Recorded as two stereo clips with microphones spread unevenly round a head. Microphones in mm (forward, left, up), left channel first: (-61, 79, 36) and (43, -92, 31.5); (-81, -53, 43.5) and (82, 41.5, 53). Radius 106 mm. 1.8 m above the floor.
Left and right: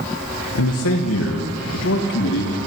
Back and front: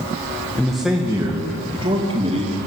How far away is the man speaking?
About 2 m.